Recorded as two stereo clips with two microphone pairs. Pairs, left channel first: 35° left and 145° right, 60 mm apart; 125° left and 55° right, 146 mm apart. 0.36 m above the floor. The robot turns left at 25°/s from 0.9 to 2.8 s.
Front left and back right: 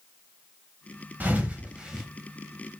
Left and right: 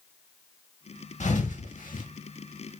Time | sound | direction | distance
1.2 | a thud | 155° left | 0.7 m